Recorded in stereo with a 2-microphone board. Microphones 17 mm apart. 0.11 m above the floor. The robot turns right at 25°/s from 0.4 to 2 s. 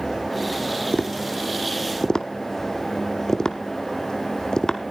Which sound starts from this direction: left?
Tapping, at 0.9 s.